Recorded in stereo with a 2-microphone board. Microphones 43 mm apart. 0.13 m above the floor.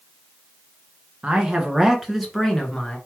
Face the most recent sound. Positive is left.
turn(degrees=15)  # may be behind; listen again after turning